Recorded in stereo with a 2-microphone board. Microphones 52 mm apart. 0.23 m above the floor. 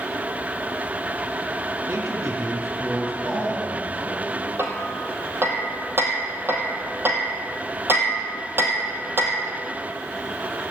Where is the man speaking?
75° right (ahead or behind), 6.5 m.